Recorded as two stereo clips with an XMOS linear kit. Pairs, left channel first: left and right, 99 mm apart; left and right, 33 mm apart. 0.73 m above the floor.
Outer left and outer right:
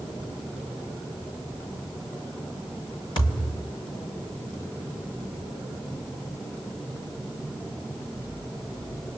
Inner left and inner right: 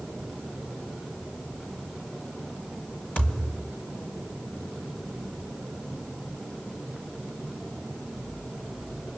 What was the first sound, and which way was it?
A thud, 45° left (ahead or behind).